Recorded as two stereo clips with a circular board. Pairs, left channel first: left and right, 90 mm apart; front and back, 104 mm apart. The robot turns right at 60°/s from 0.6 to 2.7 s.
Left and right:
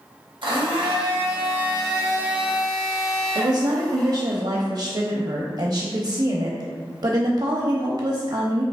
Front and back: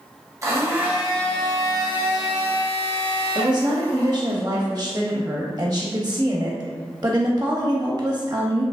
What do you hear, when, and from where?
0.4 s a blender: 120° right, 1.0 m; by 4.3 s 5° left, 1.0 m
3.4 s a woman speaking: 120° right, 0.6 m